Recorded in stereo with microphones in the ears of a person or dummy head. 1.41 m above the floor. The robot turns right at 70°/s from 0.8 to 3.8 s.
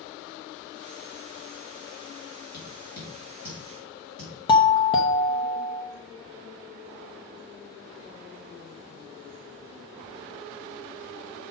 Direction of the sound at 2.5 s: 55° left (ahead or behind).